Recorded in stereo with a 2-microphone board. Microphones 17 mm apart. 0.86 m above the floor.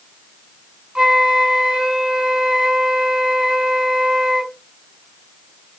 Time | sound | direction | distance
0.9 | a flute | 80° right | 3 m